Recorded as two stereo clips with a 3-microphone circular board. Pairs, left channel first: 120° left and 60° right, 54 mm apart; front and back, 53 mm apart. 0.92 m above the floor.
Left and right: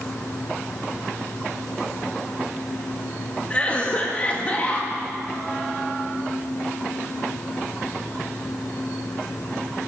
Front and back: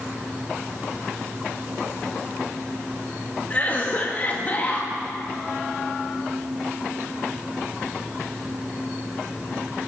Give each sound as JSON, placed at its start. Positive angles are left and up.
{"t": 3.5, "sound": "a cough", "azimuth_deg": 55, "distance_m": 1.1}